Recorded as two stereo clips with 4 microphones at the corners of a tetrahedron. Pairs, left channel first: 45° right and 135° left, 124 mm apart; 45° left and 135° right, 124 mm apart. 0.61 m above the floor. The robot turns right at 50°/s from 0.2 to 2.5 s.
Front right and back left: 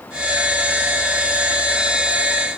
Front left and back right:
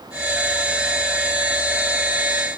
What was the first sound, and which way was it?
Only background noise.